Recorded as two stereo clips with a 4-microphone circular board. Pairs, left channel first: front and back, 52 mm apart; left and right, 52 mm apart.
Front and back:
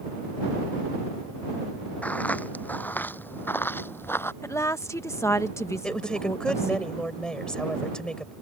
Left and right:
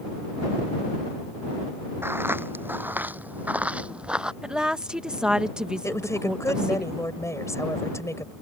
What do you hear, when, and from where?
2.0 s footsteps: 55° right; by 4.3 s 20° right
4.4 s a woman speaking: 15° right
5.8 s a woman speaking: 75° left